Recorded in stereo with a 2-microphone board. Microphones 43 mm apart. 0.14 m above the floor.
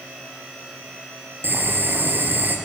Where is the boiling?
50° right (ahead or behind), 3.5 m.